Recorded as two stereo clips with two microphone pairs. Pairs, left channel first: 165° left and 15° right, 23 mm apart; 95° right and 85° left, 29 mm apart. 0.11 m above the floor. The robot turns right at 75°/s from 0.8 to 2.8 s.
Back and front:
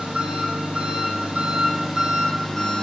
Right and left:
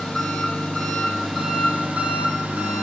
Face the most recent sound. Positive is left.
turn(degrees=110)